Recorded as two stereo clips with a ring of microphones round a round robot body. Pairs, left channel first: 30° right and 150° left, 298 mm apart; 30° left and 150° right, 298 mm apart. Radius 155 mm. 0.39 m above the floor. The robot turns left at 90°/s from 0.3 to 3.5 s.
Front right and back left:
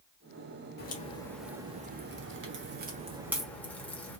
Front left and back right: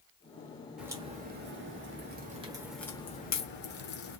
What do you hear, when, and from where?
0.8 s a crack: 65° right, 1.1 m; by 4.2 s 50° left, 1.1 m